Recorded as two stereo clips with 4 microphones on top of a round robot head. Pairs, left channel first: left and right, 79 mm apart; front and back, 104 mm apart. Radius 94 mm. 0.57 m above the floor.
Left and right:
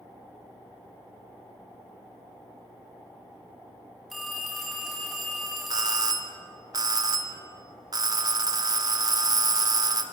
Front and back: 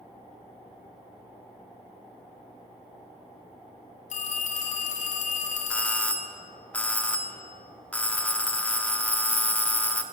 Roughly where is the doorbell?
Right.